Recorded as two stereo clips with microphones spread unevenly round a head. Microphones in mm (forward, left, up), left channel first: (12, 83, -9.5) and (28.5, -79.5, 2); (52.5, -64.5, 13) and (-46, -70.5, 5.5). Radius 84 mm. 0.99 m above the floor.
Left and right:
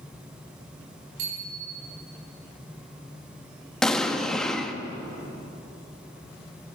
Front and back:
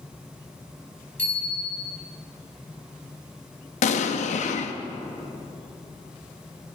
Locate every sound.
1.2 s a bicycle bell: 75° right, 5 m
3.8 s an explosion: 10° left, 0.8 m